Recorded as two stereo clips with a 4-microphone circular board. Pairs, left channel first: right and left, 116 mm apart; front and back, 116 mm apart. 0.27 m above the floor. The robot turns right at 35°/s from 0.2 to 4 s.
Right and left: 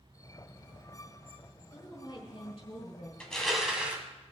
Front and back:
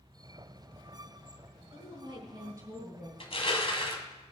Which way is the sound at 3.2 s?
10° right.